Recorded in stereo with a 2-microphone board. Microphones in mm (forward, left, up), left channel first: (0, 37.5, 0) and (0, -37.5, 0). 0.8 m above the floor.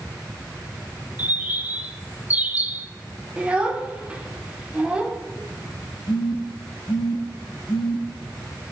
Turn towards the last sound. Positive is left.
turn(degrees=75)  # may be behind; listen again after turning